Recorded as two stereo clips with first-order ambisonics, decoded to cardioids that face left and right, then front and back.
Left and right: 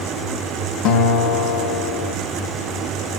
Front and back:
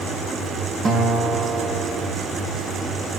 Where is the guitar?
115° left, 1.1 m.